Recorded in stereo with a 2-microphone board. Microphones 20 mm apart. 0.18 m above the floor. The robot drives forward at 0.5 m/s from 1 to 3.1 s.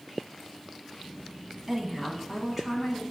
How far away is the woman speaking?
About 1.0 m.